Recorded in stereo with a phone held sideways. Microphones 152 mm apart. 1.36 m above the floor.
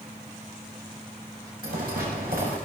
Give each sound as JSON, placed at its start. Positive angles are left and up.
{"t": 1.6, "sound": "footsteps", "side_deg": -80, "distance_m": 8.5}